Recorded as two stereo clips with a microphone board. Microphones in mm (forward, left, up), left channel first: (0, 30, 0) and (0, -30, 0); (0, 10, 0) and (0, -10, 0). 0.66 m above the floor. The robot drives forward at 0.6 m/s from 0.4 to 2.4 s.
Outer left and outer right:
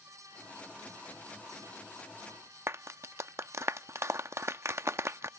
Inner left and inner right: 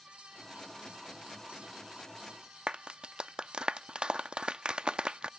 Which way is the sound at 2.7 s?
50° right (ahead or behind).